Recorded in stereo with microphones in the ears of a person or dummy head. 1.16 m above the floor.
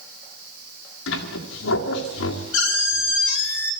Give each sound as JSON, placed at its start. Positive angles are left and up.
{"t": 1.1, "sound": "a squeak", "side_deg": 65, "distance_m": 2.0}